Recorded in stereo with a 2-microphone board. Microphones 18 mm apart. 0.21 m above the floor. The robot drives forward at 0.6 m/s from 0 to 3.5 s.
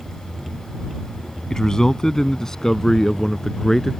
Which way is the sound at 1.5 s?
35° left (ahead or behind).